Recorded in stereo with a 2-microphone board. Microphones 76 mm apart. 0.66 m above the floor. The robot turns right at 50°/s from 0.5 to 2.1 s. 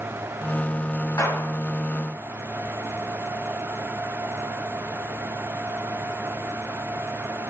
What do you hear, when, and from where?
1.2 s a gunshot: 40° left (ahead or behind), 3.5 m; by 1.5 s 55° left (ahead or behind), 3.5 m